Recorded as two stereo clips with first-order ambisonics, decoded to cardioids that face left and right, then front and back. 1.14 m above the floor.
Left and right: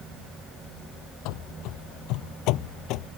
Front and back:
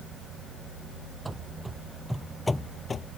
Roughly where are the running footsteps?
Left.